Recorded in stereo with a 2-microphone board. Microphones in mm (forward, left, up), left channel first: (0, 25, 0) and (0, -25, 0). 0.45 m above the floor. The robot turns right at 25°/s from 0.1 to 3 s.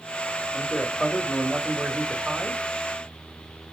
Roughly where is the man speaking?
Behind left.